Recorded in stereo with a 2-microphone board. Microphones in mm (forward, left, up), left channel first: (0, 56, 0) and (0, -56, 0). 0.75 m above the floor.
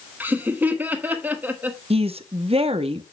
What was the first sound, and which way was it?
Laughter, 15° right (ahead or behind).